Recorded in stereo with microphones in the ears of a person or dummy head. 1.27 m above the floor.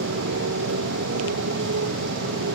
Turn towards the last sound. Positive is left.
turn(degrees=-70)  # may be behind; listen again after turning